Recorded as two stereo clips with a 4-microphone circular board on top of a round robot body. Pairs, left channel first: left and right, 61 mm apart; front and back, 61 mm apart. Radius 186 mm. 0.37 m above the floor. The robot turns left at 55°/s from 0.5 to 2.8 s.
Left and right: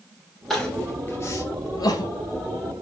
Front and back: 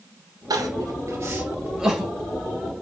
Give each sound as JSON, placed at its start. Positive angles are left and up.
{"t": 0.5, "sound": "crying", "azimuth_deg": 180, "distance_m": 1.8}